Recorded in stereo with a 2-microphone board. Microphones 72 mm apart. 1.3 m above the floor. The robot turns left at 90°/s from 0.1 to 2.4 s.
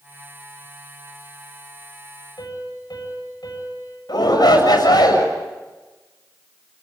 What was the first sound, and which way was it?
A piano, 80° left.